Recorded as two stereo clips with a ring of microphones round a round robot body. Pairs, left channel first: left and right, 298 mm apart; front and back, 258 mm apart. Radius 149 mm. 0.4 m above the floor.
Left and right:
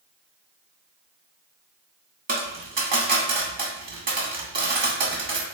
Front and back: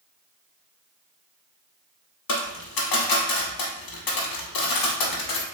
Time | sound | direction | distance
2.3 | a dropped coin | 25° right | 0.8 m